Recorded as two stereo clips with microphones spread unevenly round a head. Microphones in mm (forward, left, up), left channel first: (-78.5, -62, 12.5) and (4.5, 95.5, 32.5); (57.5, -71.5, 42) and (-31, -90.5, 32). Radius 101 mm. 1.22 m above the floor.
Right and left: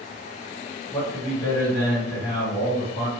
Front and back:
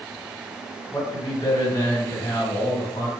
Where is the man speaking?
45° right, 1.5 m.